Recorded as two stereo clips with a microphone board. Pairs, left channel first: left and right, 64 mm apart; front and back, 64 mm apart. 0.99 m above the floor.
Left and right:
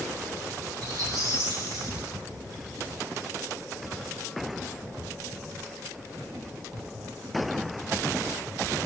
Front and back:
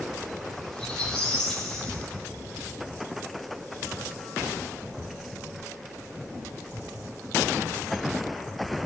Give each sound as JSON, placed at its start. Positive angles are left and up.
{"t": 0.7, "sound": "a squeak", "azimuth_deg": -85, "distance_m": 9.5}